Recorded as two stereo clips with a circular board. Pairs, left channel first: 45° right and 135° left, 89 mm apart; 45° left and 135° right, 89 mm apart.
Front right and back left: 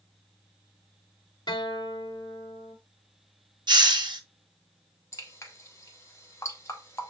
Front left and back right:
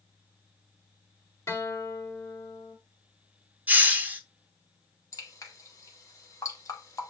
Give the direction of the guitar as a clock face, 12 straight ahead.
12 o'clock.